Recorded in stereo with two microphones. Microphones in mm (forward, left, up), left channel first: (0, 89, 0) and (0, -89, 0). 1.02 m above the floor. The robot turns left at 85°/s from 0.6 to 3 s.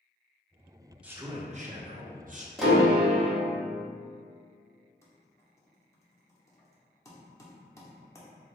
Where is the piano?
Straight ahead, 0.8 m; by 3.4 s 35° right, 0.8 m.